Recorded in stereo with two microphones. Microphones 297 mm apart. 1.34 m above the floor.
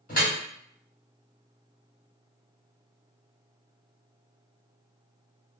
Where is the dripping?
25° left (ahead or behind), 1.2 m.